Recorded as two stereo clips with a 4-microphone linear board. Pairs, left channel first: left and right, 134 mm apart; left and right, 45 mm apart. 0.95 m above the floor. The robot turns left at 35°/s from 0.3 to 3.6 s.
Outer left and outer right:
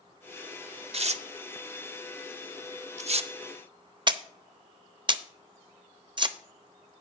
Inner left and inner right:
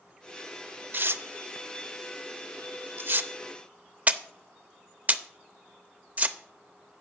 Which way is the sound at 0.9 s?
50° right (ahead or behind).